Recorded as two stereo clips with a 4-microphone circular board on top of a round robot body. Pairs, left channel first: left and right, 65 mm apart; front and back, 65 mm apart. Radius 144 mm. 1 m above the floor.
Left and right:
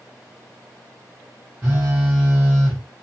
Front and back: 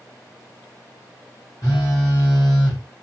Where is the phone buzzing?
25° right, 0.9 m.